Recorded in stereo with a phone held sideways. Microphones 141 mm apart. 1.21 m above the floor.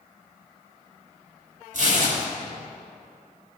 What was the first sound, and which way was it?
Tearing paper, 65° right (ahead or behind).